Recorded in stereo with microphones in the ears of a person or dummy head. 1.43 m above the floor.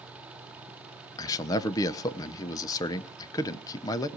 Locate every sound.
1.2 s a man speaking: 15° left (ahead or behind), 0.9 m